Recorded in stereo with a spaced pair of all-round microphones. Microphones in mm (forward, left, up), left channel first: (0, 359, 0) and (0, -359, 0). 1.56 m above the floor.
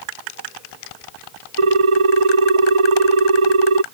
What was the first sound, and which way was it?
A ringtone, 45° right (ahead or behind).